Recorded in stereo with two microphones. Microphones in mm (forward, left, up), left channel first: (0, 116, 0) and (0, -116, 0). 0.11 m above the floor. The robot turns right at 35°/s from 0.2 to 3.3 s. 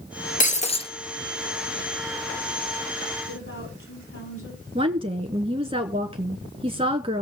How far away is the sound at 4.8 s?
About 1.1 m.